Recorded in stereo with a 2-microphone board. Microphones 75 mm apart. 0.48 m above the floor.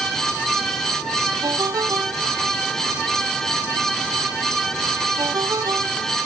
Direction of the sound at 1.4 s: 55° right (ahead or behind).